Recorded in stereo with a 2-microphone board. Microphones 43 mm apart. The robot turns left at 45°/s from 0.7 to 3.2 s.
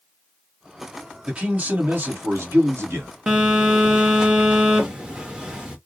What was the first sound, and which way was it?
A man speaking, 25° right.